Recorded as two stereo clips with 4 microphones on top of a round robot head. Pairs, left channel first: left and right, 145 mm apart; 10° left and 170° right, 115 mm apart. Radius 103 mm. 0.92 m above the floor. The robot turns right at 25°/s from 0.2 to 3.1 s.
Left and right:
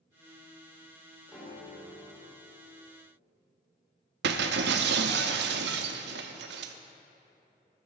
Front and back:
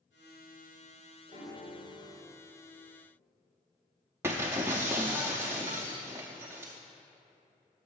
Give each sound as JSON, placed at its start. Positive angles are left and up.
{"t": 1.3, "sound": "a piano", "azimuth_deg": -10, "distance_m": 3.5}
{"t": 4.2, "sound": "breaking glass", "azimuth_deg": -95, "distance_m": 0.6}